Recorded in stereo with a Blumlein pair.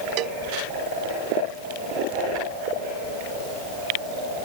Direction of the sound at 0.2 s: 40° right.